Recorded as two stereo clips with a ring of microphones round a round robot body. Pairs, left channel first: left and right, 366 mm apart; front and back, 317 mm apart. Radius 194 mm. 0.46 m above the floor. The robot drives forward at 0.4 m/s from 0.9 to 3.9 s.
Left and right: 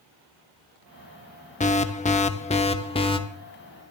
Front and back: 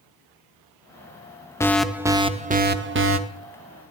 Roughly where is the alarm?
Ahead left.